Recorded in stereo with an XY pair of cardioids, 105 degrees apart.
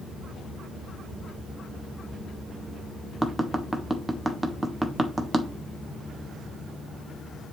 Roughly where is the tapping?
Ahead.